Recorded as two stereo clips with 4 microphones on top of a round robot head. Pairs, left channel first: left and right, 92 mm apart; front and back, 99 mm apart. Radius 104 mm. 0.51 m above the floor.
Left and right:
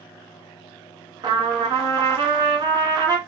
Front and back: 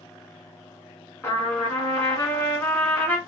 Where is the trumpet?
60° right, 1.6 m.